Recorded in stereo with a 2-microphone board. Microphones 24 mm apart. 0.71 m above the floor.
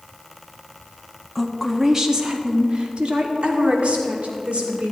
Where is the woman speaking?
5° right (ahead or behind), 1.0 m; by 4.9 s 60° right (ahead or behind), 2.5 m.